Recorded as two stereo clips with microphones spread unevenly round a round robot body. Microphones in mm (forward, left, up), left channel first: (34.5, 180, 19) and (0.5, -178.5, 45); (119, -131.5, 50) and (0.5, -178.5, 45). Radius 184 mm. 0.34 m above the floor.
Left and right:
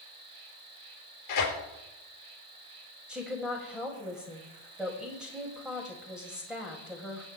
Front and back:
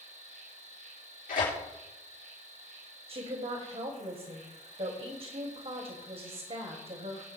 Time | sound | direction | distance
0.0 | an insect | 135° right | 2.5 m
1.3 | tearing paper | 45° left | 3.5 m
3.1 | a woman speaking | 175° left | 2 m